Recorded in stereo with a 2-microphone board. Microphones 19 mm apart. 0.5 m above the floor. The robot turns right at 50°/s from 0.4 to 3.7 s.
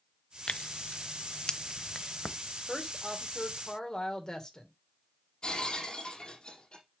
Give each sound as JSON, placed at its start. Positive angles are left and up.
{"t": 0.5, "sound": "tearing paper", "side_deg": 85, "distance_m": 0.6}
{"t": 2.7, "sound": "a woman speaking", "azimuth_deg": 0, "distance_m": 1.9}
{"t": 5.4, "sound": "breaking glass", "side_deg": 60, "distance_m": 4.0}